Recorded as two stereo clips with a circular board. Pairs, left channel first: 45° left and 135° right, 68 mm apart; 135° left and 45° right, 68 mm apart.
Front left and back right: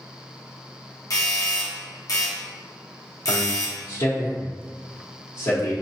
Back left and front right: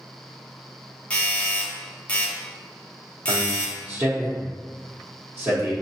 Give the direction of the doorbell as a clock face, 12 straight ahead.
10 o'clock.